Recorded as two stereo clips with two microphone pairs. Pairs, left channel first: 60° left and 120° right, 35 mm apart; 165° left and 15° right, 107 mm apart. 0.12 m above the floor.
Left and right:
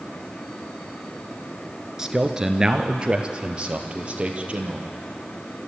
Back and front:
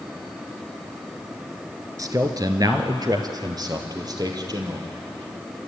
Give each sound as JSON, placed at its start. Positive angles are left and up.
{"t": 2.0, "sound": "a man speaking", "azimuth_deg": -50, "distance_m": 1.6}